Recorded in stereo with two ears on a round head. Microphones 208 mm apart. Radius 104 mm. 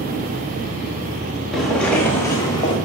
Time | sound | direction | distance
1.5 | footsteps | centre (ahead or behind) | 3 m